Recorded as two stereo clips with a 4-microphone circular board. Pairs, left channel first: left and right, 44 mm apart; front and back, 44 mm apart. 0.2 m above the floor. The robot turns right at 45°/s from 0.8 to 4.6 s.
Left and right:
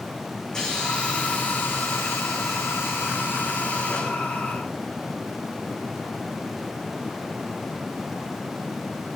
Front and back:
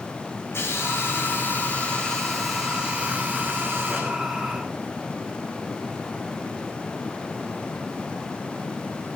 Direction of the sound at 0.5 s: 15° left.